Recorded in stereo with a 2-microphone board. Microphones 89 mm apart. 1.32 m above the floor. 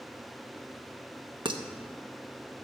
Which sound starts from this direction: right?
Dishes clattering, at 1.4 s.